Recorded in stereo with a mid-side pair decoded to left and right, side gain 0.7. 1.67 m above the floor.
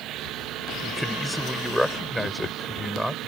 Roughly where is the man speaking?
Ahead.